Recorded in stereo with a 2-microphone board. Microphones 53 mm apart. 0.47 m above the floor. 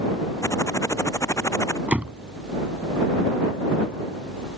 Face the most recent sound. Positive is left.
turn(degrees=-25)  # may be behind; listen again after turning